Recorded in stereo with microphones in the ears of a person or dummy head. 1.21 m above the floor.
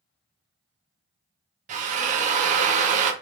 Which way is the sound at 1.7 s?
40° right (ahead or behind).